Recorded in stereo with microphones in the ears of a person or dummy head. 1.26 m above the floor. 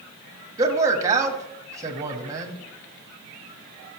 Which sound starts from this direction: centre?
A man speaking, at 0.6 s.